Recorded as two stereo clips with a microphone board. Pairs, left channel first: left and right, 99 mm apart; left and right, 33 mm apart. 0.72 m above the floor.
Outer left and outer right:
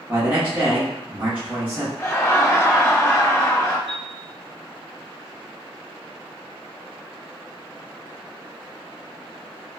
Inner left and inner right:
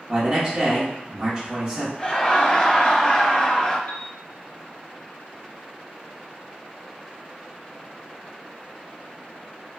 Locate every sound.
0.1 s a man speaking: 15° right (ahead or behind), 0.9 m
2.0 s laughter: 30° left (ahead or behind), 0.6 m
3.9 s a piano: 65° left (ahead or behind), 0.7 m